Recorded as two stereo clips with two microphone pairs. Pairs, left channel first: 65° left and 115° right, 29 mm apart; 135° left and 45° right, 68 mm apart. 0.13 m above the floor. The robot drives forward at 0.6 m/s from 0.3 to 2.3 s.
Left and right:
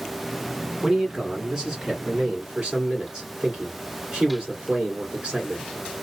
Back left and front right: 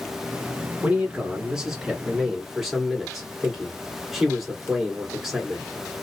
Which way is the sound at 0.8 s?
90° right.